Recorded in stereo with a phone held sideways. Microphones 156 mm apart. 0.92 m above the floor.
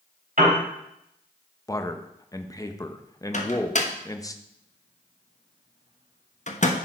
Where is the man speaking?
20° left (ahead or behind), 0.7 m.